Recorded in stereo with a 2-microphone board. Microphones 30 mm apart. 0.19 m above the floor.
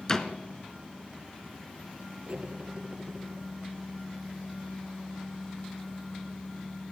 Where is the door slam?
20° left (ahead or behind), 1.9 m.